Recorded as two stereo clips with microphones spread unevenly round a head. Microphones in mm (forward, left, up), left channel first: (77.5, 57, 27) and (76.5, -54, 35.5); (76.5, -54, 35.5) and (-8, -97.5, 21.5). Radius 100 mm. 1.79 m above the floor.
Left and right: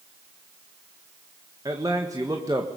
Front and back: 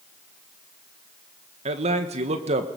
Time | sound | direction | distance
1.6 | a man speaking | 165° right | 1.6 m